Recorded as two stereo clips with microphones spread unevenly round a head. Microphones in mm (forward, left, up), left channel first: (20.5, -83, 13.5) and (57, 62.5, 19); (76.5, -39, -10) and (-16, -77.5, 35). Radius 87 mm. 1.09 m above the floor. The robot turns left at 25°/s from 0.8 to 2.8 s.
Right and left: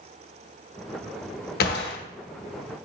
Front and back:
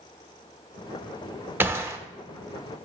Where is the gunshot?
90° right, 0.9 m; by 2.0 s 95° right, 0.9 m.